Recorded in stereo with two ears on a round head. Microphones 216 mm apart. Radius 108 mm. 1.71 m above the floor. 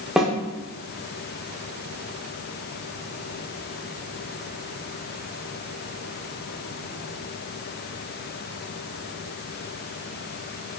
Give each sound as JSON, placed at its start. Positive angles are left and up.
{"t": 0.2, "sound": "a snare drum", "side_deg": 0, "distance_m": 0.6}